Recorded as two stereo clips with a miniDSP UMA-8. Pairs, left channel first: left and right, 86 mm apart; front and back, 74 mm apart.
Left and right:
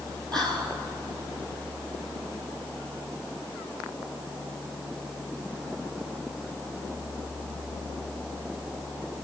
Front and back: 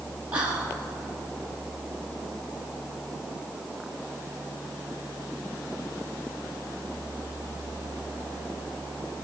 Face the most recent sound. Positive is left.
turn(degrees=-115)